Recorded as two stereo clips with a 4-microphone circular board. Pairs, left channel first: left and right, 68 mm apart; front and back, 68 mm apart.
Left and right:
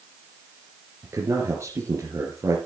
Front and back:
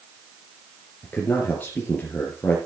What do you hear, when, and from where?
1.0 s a man speaking: 60° right, 3 m